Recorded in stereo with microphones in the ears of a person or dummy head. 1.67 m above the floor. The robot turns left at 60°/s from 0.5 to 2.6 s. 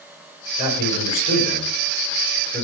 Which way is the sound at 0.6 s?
130° left.